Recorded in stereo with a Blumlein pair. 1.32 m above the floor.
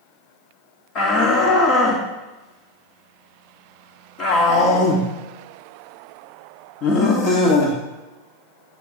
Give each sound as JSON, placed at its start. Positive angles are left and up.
{"t": 0.9, "sound": "a shout", "azimuth_deg": 35, "distance_m": 2.5}